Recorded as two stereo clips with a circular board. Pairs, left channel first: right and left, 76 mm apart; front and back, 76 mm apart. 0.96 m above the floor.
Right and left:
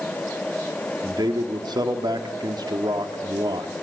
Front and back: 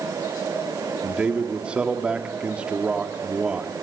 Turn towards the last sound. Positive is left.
turn(degrees=105)